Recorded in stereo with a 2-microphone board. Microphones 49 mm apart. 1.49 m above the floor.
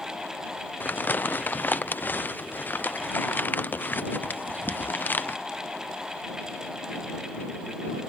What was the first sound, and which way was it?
Crumpling, 40° left (ahead or behind).